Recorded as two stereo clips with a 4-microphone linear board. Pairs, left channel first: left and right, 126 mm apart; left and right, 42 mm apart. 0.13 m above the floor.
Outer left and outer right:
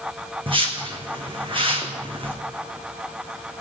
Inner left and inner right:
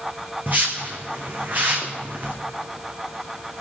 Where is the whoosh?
45° right (ahead or behind), 1.6 m.